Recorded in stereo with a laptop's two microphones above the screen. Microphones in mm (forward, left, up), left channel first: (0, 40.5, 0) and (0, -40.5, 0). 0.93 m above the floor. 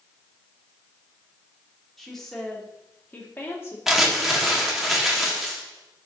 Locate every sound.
2.0 s a woman speaking: centre (ahead or behind), 2.5 m; by 3.8 s 35° left (ahead or behind), 1.7 m
3.9 s crumpling: 5° right (ahead or behind), 1.6 m